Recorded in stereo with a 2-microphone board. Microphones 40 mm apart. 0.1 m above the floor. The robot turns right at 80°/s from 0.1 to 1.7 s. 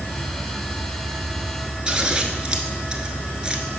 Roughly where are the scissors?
Centre.